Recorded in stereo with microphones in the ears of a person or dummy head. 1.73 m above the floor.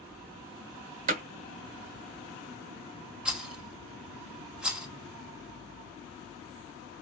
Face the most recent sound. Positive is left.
turn(degrees=-5)  # may be behind; listen again after turning